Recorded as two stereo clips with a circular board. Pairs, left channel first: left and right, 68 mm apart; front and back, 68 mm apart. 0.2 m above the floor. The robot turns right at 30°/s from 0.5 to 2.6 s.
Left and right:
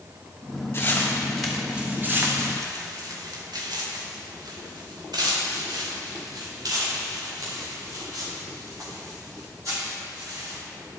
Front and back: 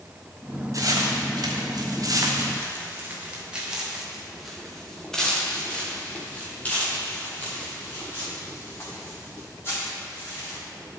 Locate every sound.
0.7 s footsteps: 150° left, 4 m; by 10.6 s 55° right, 10 m